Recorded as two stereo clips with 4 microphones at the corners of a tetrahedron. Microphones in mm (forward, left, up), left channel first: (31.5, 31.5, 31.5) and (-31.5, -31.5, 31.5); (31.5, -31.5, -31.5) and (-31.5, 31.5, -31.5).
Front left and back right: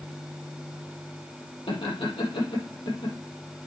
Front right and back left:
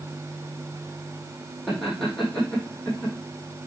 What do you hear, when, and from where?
1.7 s laughter: 40° left, 5.5 m